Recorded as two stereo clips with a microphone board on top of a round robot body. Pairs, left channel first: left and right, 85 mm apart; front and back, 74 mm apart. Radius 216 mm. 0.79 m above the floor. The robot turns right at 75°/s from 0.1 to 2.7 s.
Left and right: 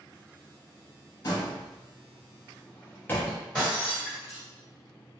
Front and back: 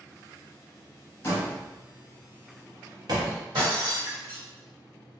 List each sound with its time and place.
1.2 s a door slam: 50° left, 1.0 m; by 3.4 s 155° left, 1.0 m
3.5 s breaking glass: straight behind, 1.6 m